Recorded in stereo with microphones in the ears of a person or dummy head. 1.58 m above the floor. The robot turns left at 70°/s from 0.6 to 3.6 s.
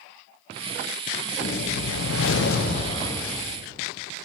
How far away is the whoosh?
About 1.1 m.